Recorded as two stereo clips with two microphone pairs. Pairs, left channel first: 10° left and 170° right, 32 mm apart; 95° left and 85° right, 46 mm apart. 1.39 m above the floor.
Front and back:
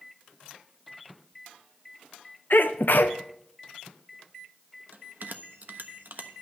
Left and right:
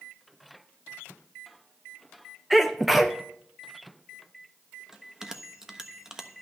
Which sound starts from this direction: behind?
A bell, at 4.9 s.